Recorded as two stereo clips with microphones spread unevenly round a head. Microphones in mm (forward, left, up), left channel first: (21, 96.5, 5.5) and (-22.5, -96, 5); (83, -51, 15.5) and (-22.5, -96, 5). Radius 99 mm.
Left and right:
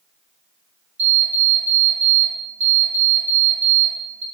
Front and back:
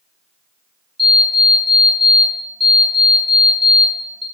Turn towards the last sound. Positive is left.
turn(degrees=-65)